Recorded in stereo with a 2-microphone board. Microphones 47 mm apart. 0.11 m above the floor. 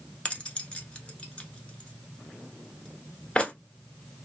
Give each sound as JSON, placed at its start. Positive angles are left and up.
{"t": 0.2, "sound": "keys jangling", "side_deg": 25, "distance_m": 0.8}